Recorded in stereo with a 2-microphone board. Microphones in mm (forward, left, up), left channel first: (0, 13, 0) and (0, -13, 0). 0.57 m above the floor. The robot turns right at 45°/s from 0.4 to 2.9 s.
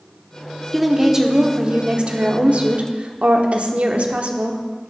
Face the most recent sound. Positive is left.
turn(degrees=-75)